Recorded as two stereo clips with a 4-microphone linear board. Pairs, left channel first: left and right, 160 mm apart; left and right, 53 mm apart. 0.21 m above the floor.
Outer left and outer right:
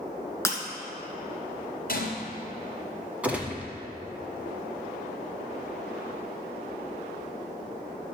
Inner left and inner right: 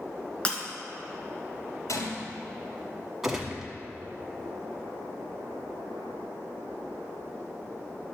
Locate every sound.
0.5 s breaking glass: 20° left (ahead or behind), 1.6 m
1.9 s a gunshot: 70° left (ahead or behind), 3 m
3.2 s a gunshot: 10° right (ahead or behind), 1.5 m